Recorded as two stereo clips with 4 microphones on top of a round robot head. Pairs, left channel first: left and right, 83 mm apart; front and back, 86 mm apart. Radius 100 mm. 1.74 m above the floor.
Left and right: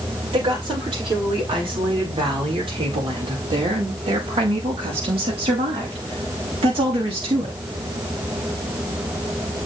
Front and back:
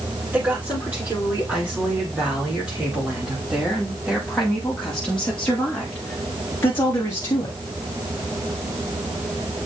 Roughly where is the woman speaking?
Right.